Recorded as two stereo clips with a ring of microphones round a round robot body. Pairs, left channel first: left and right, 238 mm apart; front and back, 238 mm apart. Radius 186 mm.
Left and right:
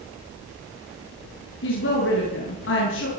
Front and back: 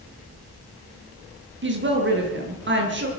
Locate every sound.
1.6 s a woman speaking: 140° left, 9 m